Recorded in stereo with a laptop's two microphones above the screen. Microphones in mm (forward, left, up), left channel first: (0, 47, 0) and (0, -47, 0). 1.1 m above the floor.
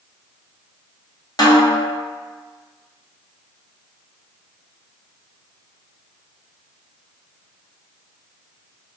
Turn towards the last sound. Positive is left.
turn(degrees=45)  # may be behind; listen again after turning